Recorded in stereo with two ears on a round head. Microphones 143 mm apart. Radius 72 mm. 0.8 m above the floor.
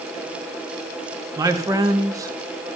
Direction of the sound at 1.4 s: 20° right (ahead or behind).